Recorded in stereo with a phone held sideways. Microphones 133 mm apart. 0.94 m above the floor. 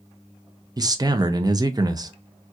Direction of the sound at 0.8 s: 30° right (ahead or behind).